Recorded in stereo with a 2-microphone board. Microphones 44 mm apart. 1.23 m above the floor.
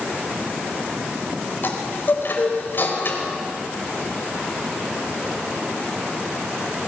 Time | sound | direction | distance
1.6 | a chime | 50° left (ahead or behind) | 4 m